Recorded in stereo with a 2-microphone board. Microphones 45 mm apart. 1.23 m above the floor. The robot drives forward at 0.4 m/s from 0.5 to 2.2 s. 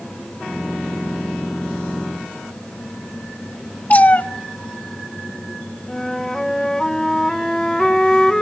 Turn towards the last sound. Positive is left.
turn(degrees=10)  # may be behind; listen again after turning